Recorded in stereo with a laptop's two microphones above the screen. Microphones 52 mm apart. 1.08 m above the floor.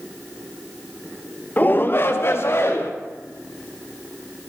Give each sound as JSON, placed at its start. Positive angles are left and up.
{"t": 1.6, "sound": "a shout", "side_deg": 35, "distance_m": 0.7}